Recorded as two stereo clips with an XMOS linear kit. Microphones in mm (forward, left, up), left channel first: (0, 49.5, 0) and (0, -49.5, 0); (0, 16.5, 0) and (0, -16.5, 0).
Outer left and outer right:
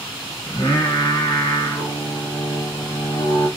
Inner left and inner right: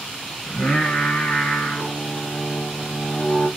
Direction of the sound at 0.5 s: 50° left (ahead or behind).